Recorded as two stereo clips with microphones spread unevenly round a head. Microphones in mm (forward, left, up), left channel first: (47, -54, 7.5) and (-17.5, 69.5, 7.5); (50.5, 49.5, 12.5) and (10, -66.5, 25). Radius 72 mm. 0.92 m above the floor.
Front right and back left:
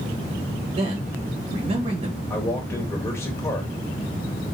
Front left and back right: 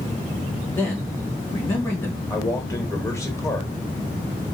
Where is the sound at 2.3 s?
10° left, 1.1 m.